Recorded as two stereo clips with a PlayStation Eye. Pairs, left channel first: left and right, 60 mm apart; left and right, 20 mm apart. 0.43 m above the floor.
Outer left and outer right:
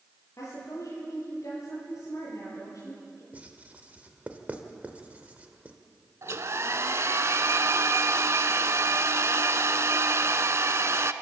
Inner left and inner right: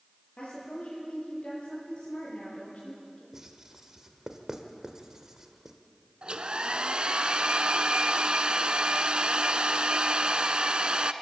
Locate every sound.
0.4 s a woman speaking: 55° left (ahead or behind), 8.5 m
3.3 s writing: 25° right (ahead or behind), 1.6 m
6.2 s a hair dryer: 50° right (ahead or behind), 0.7 m